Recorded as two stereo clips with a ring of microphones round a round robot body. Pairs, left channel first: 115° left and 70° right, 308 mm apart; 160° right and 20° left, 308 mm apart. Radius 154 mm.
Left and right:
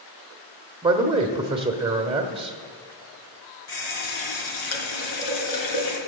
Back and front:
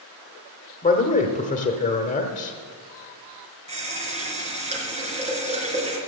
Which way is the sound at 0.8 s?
120° right.